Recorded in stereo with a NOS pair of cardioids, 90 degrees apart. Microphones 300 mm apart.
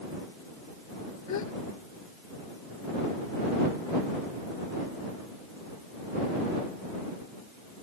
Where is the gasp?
60° left.